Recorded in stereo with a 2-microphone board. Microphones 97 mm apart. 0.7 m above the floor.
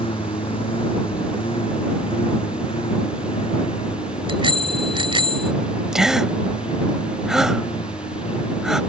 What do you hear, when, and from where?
0.0 s a lawn mower: 65° left (ahead or behind); by 8.9 s 70° left (ahead or behind)
4.3 s a bicycle bell: 65° right (ahead or behind)
5.9 s a gasp: 5° right (ahead or behind)